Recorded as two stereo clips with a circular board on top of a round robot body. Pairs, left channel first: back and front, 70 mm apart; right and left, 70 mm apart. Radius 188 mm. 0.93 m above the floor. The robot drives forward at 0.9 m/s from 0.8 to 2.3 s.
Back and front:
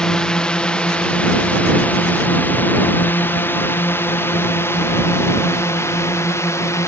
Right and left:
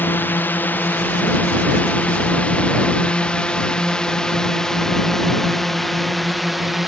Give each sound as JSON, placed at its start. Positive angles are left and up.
{"t": 0.0, "sound": "a drone", "azimuth_deg": -110}